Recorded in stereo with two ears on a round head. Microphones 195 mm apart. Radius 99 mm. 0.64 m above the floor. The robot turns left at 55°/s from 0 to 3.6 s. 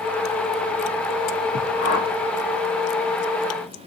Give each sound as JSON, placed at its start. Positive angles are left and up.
{"t": 1.8, "sound": "a whoosh", "side_deg": 75, "distance_m": 1.5}